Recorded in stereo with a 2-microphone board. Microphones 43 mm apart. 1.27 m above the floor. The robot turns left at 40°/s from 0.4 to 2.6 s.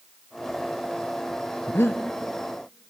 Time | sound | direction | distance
1.7 | breathing | 65° left (ahead or behind) | 0.6 m